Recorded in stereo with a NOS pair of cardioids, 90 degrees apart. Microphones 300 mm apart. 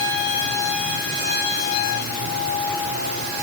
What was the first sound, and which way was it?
Only background noise.